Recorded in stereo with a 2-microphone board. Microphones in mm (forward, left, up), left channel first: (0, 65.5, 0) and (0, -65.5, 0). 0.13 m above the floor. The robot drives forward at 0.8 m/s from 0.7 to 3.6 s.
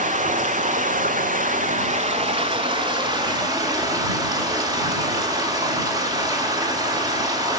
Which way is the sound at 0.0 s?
70° right (ahead or behind).